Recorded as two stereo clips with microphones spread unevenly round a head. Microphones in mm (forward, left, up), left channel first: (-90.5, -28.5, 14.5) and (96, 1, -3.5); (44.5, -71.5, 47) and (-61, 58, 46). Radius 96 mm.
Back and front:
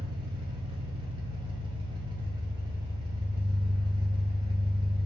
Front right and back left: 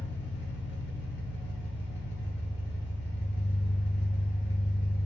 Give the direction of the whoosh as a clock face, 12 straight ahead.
I don't hear a whoosh.